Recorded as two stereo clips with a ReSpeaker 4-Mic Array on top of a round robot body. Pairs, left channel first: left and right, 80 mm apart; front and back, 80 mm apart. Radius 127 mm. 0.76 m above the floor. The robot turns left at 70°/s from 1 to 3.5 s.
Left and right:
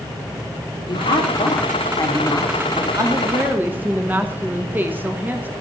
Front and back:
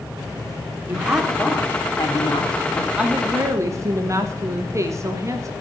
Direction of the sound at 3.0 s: 110° right.